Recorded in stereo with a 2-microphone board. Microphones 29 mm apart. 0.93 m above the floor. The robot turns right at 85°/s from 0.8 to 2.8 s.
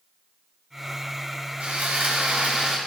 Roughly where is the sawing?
Behind right.